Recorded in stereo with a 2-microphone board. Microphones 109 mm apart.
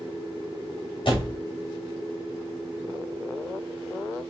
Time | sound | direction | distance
1.1 | a door slam | 50° left (ahead or behind) | 1.8 m